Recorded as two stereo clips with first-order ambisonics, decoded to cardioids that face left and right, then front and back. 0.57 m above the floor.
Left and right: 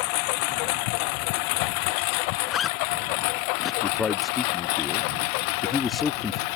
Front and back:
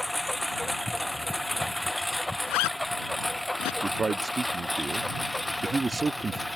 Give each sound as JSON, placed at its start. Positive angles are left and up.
{"t": 0.0, "sound": "a lawn mower", "azimuth_deg": 90}
{"t": 2.5, "sound": "a zipper", "azimuth_deg": 20}
{"t": 3.8, "sound": "a man speaking", "azimuth_deg": 135}